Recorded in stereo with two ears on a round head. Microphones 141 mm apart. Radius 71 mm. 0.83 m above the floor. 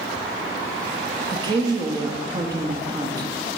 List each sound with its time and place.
1.3 s a woman speaking: 25° right (ahead or behind), 1.0 m